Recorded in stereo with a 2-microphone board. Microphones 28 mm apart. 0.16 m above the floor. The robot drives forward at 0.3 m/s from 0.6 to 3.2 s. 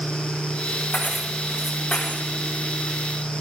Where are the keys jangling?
70° left (ahead or behind), 7 m.